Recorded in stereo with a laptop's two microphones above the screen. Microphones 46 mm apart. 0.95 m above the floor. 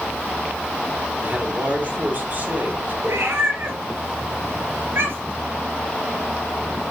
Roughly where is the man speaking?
Right.